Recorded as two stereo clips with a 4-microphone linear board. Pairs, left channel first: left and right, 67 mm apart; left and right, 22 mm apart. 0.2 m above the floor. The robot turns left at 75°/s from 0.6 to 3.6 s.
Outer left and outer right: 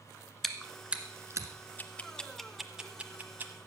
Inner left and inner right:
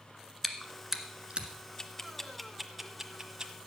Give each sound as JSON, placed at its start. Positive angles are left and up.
{"t": 0.4, "sound": "chewing", "side_deg": 5, "distance_m": 1.4}
{"t": 1.8, "sound": "ticking", "side_deg": 25, "distance_m": 1.2}